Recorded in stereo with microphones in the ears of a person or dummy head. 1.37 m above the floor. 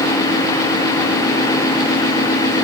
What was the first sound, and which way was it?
Only background noise.